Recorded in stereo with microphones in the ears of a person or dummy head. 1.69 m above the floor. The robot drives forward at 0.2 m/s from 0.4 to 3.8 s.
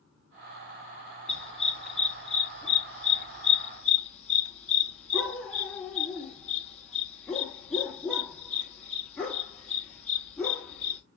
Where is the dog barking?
Centre (ahead or behind), 1.6 m.